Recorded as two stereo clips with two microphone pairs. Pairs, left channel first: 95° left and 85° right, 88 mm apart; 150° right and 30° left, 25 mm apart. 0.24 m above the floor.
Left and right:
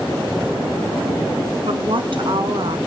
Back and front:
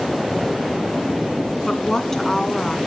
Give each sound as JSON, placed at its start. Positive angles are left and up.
{"t": 1.7, "sound": "a woman speaking", "azimuth_deg": -85, "distance_m": 2.0}